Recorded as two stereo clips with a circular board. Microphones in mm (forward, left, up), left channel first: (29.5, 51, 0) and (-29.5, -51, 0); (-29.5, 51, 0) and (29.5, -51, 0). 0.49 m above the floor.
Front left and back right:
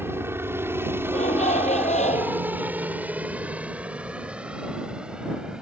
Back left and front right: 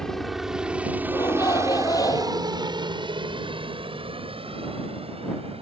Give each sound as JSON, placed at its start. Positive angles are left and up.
{"t": 0.0, "sound": "a helicopter", "azimuth_deg": -160}
{"t": 1.1, "sound": "a shout", "azimuth_deg": 60}